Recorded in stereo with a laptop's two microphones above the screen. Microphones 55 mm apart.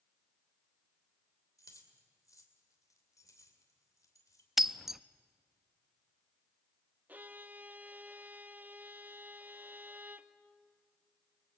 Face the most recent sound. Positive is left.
turn(degrees=-30)  # may be behind; listen again after turning